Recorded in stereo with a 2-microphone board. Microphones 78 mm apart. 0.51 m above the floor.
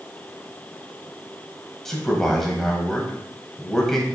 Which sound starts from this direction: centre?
A man speaking, at 1.9 s.